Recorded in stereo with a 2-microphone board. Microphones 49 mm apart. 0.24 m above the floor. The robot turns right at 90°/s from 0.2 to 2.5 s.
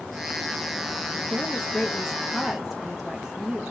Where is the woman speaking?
25° left (ahead or behind), 1.0 m; by 3.7 s 5° right (ahead or behind), 1.0 m.